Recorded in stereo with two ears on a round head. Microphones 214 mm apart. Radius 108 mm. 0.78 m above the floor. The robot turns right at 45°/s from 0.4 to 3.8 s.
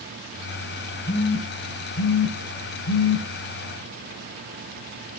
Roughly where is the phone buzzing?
Left.